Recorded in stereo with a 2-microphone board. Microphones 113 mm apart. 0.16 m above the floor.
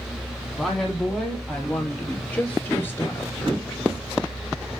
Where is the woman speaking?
Centre (ahead or behind), 6 m; by 3.8 s 35° left (ahead or behind), 2.5 m.